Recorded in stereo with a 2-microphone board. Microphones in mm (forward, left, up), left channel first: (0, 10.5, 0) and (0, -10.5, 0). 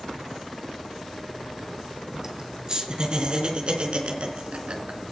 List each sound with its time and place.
2.2 s laughter: 30° right (ahead or behind), 4 m; by 5.0 s 60° right (ahead or behind), 3.5 m